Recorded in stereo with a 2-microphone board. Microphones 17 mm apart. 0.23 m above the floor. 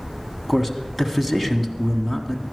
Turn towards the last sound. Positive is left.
turn(degrees=-10)  # may be behind; listen again after turning